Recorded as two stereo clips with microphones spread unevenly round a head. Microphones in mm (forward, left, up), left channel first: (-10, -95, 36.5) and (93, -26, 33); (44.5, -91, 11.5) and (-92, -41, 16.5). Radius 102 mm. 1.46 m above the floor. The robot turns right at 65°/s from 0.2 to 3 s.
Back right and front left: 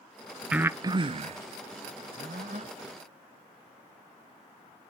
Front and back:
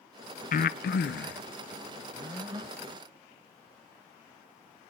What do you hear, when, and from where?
0.5 s breathing: 50° right, 0.6 m; by 2.7 s 95° left, 0.6 m